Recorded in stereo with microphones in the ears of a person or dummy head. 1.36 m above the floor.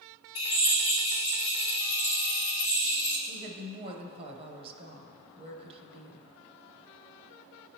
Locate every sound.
0.3 s a drill: 30° left (ahead or behind), 1.3 m
3.3 s a woman speaking: 30° right (ahead or behind), 0.8 m